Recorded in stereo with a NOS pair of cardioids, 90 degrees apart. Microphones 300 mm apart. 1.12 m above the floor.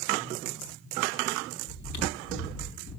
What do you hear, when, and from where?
1.7 s chewing: 65° left, 3.5 m